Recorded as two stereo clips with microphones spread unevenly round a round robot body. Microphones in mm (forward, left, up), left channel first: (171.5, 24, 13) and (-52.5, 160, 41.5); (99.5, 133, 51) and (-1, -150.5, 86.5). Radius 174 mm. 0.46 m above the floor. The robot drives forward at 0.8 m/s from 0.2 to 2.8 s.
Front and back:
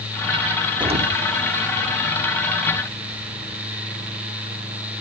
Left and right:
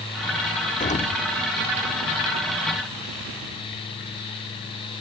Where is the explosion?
80° left, 0.9 m; by 1.2 s 120° left, 0.9 m.